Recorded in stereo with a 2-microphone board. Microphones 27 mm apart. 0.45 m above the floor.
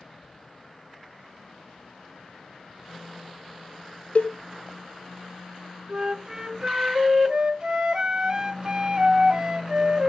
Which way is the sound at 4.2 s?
60° left (ahead or behind).